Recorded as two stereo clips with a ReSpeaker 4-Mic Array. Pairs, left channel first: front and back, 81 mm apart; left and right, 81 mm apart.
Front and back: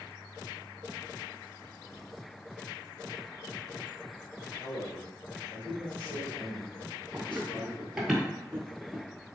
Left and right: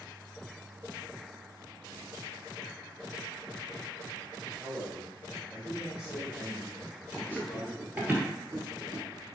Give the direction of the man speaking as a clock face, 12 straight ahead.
1 o'clock.